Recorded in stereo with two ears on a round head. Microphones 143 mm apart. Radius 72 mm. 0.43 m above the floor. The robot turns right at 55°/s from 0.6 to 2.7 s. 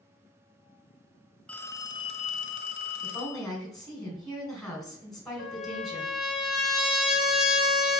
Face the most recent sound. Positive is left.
turn(degrees=-5)  # may be behind; listen again after turning